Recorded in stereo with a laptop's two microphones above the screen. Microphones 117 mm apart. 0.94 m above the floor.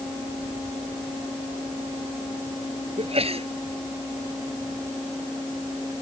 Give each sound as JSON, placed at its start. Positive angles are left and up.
{"t": 3.0, "sound": "a sneeze", "side_deg": -55}